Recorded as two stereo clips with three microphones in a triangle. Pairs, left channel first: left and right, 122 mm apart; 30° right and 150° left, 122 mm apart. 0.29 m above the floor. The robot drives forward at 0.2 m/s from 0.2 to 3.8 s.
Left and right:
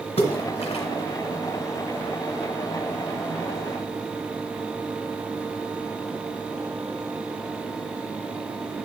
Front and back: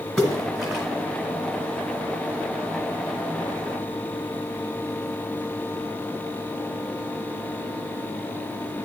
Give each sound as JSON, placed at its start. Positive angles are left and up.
{"t": 0.2, "sound": "a splash", "azimuth_deg": 60, "distance_m": 1.3}